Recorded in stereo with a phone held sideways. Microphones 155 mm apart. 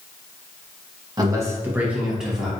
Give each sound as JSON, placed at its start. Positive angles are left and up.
{"t": 1.2, "sound": "a man speaking", "side_deg": -25, "distance_m": 0.7}